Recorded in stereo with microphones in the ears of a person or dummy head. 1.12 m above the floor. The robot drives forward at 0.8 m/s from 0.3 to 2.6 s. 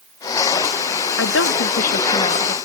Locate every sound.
1.2 s a woman speaking: 75° left (ahead or behind), 0.9 m; by 2.5 s 35° left (ahead or behind), 1.5 m